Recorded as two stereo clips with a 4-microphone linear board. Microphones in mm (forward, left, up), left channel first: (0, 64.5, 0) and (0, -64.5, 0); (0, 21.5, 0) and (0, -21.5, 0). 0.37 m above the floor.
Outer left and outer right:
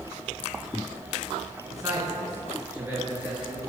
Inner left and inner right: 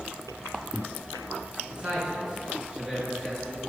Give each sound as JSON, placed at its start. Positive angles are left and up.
{"t": 1.7, "sound": "a man speaking", "side_deg": -25, "distance_m": 3.5}